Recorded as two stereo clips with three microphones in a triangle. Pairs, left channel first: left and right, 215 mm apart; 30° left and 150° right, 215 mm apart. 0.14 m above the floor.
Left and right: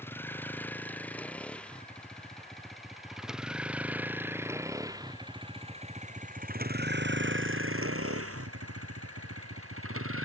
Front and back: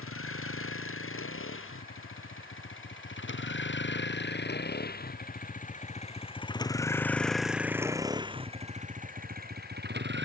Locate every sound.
0.0 s a vehicle: 10° left; by 10.3 s 110° right